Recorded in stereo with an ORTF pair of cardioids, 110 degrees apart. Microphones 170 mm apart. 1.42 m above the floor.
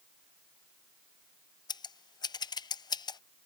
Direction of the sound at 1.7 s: 25° left.